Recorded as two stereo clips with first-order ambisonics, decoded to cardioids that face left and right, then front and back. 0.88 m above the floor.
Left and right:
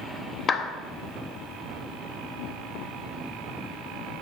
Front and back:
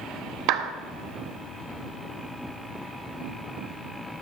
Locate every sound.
0.5 s a clap: 155° left, 0.7 m